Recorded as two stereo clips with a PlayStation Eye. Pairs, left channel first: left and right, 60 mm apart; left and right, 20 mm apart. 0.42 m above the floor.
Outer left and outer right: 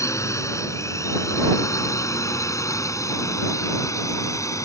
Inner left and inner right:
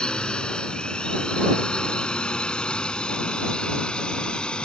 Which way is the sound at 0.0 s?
60° left (ahead or behind).